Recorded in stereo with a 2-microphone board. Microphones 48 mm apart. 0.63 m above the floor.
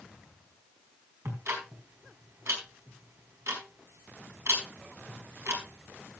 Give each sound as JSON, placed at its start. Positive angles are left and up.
{"t": 1.2, "sound": "ticking", "side_deg": -75, "distance_m": 4.5}